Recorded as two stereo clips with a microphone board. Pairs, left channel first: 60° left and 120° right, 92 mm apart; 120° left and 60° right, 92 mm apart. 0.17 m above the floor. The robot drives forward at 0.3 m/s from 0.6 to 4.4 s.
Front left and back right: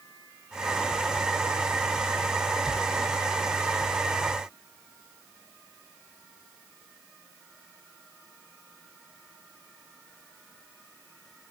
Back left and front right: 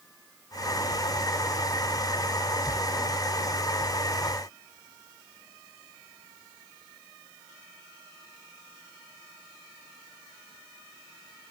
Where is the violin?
No violin in this recording.